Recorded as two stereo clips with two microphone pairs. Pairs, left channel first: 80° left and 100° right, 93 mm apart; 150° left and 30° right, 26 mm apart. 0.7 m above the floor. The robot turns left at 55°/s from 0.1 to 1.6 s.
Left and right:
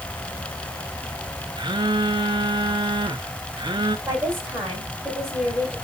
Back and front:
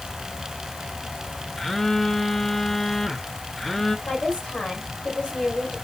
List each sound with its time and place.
1.6 s a phone buzzing: 130° right, 0.9 m
4.1 s a woman speaking: 165° right, 5 m